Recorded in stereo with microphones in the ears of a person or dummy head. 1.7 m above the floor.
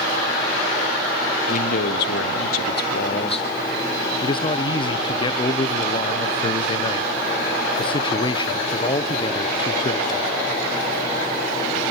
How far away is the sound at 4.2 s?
About 1.0 m.